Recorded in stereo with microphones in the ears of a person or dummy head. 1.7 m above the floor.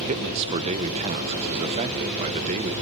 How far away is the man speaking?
About 1.2 m.